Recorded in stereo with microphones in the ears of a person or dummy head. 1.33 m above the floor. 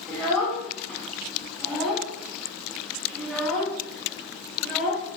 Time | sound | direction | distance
0.1 | a child speaking | 5° left (ahead or behind) | 0.9 m